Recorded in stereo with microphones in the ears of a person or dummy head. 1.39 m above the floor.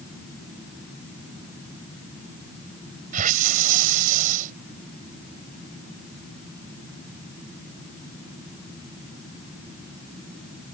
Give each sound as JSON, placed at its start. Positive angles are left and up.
{"t": 3.1, "sound": "a hiss", "side_deg": -45}